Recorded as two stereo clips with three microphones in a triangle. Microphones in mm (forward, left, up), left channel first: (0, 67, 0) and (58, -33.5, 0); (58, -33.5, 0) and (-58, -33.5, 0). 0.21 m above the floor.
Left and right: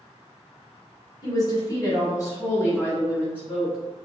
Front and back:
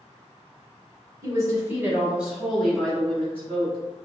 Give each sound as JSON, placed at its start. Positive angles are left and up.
{"t": 1.2, "sound": "a woman speaking", "azimuth_deg": 145, "distance_m": 1.4}